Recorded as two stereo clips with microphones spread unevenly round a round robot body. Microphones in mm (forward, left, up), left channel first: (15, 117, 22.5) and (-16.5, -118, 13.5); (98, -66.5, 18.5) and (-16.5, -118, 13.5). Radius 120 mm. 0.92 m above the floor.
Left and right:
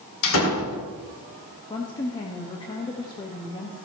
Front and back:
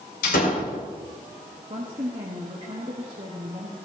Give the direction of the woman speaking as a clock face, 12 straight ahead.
7 o'clock.